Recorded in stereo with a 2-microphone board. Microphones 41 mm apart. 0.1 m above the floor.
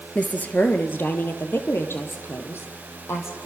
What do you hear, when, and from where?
0.1 s a woman speaking: 30° left (ahead or behind), 2 m; by 3.5 s 75° left (ahead or behind), 5.5 m